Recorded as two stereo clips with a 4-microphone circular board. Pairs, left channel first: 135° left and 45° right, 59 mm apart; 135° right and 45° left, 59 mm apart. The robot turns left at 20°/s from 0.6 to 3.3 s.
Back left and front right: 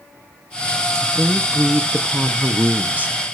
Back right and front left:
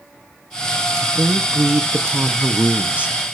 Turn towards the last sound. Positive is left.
turn(degrees=-10)